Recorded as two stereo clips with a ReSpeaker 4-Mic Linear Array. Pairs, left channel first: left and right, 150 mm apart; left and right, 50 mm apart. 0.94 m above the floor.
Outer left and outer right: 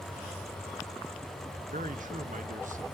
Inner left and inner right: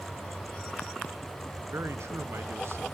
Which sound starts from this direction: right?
A man speaking, at 1.7 s.